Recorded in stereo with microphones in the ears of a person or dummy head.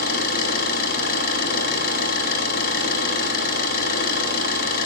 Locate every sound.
0.0 s an engine running: 50° left (ahead or behind), 9 m